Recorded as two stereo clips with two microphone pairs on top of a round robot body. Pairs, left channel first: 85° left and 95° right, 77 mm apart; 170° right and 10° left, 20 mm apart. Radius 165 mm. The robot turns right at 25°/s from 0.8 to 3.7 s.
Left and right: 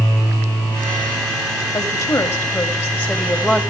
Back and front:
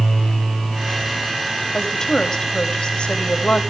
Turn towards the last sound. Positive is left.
turn(degrees=170)